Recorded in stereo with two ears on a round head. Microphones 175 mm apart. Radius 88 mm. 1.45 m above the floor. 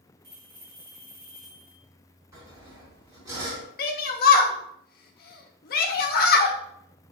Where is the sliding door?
I don't hear a sliding door.